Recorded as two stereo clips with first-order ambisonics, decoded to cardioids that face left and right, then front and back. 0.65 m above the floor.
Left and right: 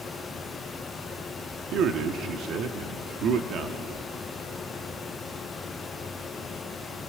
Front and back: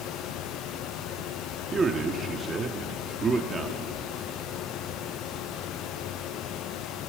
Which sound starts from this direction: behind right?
A man speaking, at 1.7 s.